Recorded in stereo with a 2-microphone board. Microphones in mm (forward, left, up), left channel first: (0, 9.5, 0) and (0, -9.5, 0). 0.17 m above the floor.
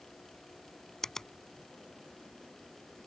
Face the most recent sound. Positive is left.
turn(degrees=25)  # may be behind; listen again after turning